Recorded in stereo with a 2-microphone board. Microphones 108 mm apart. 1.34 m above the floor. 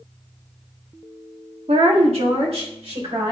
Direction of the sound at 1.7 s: 70° right (ahead or behind).